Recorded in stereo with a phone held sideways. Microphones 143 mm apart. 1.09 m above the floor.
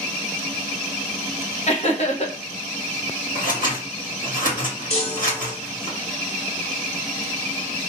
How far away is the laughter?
About 1.2 m.